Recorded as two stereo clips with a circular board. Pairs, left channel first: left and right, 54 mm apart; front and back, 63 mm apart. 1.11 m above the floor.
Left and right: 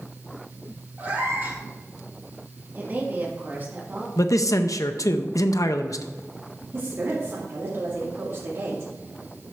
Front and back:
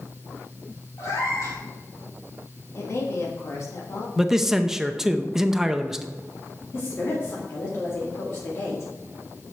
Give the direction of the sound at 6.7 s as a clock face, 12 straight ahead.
2 o'clock.